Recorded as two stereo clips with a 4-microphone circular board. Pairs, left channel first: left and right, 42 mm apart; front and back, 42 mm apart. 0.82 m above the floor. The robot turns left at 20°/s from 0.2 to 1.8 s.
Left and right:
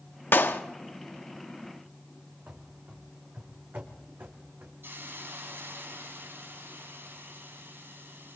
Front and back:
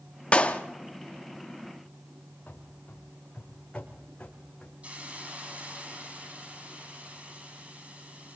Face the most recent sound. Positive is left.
turn(degrees=-120)